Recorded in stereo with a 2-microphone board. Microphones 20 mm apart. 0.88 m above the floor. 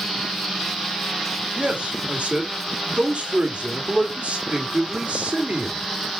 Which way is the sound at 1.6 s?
65° right (ahead or behind).